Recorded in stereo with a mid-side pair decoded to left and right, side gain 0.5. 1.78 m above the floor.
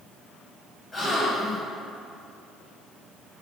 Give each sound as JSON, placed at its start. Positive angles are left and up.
{"t": 0.9, "sound": "a gasp", "azimuth_deg": 30, "distance_m": 2.0}